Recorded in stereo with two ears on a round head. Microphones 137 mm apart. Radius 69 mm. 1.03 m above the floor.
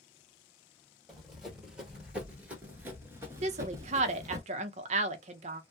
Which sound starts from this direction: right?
A woman speaking, at 3.4 s.